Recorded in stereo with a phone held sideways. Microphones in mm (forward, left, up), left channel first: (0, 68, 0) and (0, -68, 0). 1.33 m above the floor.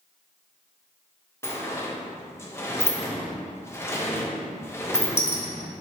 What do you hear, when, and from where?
1.4 s a sliding door: 20° left (ahead or behind), 0.8 m